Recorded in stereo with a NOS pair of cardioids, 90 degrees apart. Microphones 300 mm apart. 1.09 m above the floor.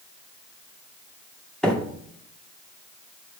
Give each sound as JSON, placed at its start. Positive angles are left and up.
{"t": 1.6, "sound": "a microwave", "azimuth_deg": 0, "distance_m": 2.0}